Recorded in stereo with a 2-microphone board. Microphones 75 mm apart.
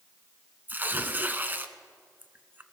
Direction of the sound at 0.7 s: 25° right (ahead or behind).